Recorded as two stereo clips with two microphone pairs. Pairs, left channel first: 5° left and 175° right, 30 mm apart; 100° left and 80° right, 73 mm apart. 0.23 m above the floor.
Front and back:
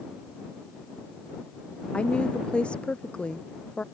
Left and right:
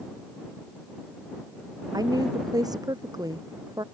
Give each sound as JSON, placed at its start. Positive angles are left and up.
{"t": 1.9, "sound": "a woman speaking", "azimuth_deg": -50}